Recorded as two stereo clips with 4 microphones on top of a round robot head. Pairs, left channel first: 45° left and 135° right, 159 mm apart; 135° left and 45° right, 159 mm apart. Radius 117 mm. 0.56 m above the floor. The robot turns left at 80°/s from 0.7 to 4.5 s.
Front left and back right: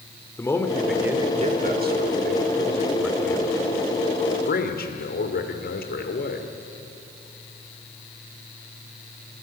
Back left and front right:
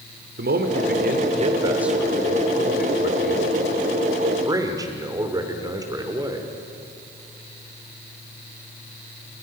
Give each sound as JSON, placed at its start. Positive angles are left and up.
{"t": 0.4, "sound": "a man speaking", "azimuth_deg": -30, "distance_m": 2.5}